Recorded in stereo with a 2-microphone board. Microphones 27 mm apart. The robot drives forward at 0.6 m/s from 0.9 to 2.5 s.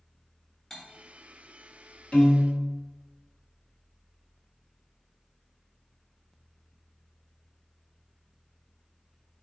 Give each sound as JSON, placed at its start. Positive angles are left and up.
{"t": 0.7, "sound": "cutlery clinking", "side_deg": 15, "distance_m": 0.9}
{"t": 2.1, "sound": "a piano", "side_deg": 30, "distance_m": 1.1}